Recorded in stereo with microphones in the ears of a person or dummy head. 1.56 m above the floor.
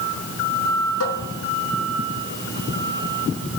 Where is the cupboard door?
75° left (ahead or behind), 4 m.